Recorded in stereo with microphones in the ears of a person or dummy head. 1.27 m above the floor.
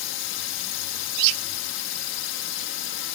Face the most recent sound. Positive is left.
turn(degrees=65)  # may be behind; listen again after turning